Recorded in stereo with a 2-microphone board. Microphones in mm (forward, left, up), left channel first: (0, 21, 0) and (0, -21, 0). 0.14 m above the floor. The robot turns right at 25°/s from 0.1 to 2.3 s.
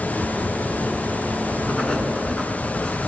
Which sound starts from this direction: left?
Writing, at 1.7 s.